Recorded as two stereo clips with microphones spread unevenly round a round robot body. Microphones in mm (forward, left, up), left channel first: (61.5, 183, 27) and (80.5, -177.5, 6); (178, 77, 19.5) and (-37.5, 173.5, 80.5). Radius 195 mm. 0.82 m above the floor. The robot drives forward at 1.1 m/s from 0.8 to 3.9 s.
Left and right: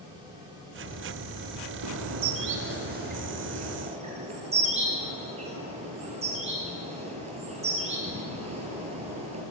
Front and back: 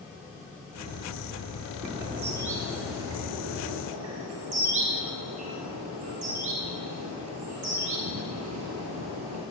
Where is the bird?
135° right, 1.5 m; by 9.4 s 160° right, 3.5 m.